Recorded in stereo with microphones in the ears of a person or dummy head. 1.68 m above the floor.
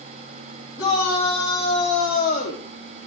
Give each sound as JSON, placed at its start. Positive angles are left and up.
{"t": 0.8, "sound": "a shout", "side_deg": 25, "distance_m": 5.0}